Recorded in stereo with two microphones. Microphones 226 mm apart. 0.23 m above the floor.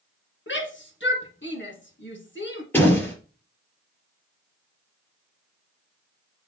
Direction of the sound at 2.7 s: 10° left (ahead or behind).